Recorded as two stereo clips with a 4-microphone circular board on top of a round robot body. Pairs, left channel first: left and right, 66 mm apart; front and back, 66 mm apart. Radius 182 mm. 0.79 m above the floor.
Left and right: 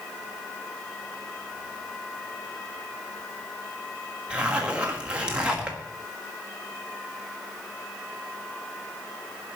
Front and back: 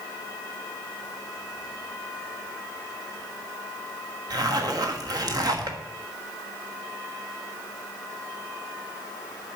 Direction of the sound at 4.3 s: 165° right.